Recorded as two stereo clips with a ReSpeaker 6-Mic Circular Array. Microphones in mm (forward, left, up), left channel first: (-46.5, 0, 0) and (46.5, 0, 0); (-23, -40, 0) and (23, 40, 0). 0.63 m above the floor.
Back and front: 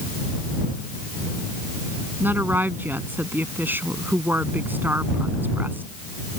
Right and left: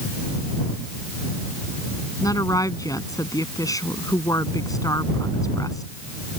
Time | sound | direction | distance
2.2 | a woman speaking | 70° right | ?